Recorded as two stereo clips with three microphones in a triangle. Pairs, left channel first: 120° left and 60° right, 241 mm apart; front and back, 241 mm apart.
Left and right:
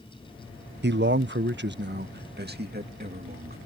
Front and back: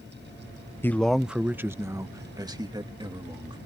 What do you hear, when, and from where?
0.8 s a man speaking: 75° right; by 3.6 s 110° right